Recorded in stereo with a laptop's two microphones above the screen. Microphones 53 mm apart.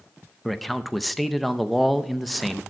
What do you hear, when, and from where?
0.5 s a man speaking: centre (ahead or behind), 0.5 m